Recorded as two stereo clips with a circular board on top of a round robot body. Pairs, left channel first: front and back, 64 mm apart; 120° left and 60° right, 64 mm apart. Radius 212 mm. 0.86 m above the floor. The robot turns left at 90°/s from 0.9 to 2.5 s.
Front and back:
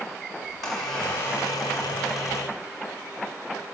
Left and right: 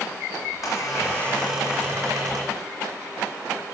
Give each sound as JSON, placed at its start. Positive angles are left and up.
{"t": 0.4, "sound": "a squeak", "azimuth_deg": 30, "distance_m": 0.8}